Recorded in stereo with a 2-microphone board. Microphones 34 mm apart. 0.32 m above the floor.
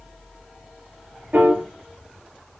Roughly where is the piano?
Right.